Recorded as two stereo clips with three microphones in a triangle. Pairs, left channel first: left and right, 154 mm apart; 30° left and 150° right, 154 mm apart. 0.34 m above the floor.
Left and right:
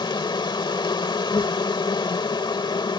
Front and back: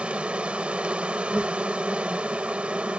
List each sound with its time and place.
0.0 s an insect: 130° left